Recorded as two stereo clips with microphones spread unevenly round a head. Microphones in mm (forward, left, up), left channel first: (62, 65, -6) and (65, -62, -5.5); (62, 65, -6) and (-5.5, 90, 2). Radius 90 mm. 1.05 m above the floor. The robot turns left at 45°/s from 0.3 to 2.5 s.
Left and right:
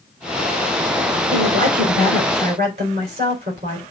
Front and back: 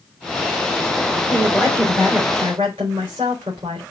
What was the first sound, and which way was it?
A woman speaking, 95° right.